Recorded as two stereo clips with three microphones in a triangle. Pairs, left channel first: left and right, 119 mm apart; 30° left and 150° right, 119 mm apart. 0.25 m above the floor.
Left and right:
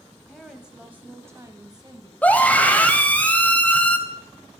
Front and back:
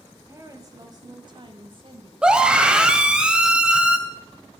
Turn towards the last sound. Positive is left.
turn(degrees=140)